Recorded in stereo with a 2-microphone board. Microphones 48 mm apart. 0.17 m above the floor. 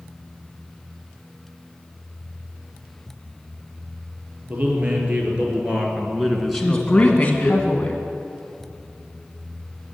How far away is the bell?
I don't hear a bell.